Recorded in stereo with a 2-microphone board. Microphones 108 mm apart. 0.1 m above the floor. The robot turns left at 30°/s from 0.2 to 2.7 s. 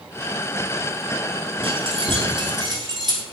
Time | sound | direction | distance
1.6 | keys jangling | 55° right (ahead or behind) | 1.3 m